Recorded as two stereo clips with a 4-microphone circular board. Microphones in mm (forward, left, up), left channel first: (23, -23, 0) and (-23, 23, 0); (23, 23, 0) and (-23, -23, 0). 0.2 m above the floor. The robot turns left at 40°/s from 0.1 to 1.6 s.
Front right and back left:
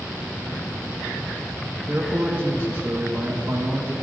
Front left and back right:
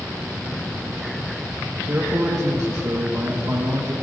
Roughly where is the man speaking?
Behind.